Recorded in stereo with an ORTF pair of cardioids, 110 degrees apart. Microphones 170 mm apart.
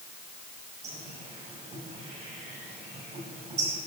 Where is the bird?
40° right, 5.5 m.